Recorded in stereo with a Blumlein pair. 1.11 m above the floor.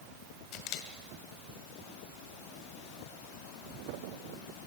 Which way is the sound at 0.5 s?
40° left.